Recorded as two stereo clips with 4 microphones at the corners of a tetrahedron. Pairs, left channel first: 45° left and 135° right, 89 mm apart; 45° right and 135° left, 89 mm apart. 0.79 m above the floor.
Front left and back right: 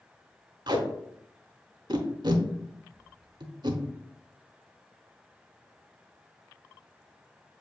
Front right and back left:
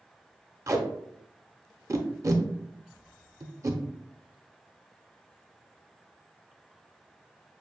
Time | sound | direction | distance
0.7 | tape being pulled | 170° right | 0.8 m